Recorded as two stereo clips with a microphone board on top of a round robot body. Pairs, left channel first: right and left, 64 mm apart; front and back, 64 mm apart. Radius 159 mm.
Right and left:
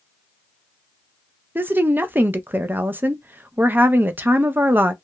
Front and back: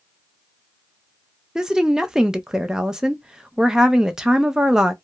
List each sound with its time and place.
1.6 s a woman speaking: 110° left, 0.6 m